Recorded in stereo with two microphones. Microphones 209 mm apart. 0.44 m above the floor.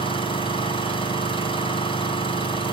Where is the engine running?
25° left (ahead or behind), 3.5 m.